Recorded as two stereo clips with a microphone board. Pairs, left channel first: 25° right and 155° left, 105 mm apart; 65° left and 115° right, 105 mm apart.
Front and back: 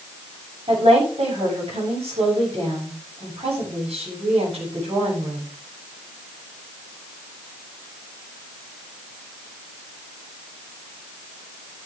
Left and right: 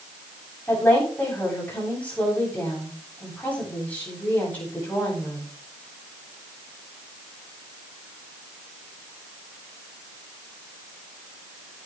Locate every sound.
0.7 s a woman speaking: 140° left, 8 m